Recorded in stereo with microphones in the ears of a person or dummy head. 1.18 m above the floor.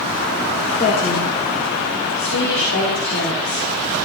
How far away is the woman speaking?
About 1.8 m.